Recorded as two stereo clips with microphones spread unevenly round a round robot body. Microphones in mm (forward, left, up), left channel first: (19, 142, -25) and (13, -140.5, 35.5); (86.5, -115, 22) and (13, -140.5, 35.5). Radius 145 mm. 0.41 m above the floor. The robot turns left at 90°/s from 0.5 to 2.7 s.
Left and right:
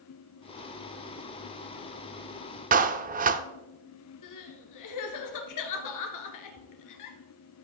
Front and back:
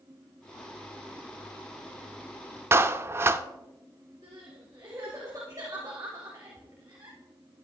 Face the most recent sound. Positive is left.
turn(degrees=120)